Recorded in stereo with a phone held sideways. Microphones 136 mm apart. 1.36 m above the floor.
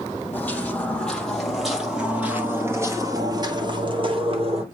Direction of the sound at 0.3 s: 15° left (ahead or behind).